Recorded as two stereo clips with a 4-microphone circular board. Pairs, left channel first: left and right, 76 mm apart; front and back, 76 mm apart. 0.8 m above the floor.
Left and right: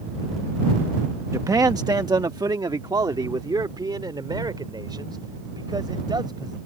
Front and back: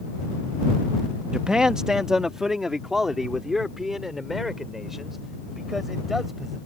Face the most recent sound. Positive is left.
turn(degrees=-95)